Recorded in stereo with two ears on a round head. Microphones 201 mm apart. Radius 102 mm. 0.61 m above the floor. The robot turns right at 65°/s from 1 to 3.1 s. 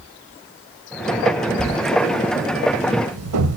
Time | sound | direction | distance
1.6 | writing | 20° left (ahead or behind) | 1.4 m